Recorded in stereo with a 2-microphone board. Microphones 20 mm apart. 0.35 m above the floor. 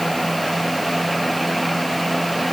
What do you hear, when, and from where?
Only background noise.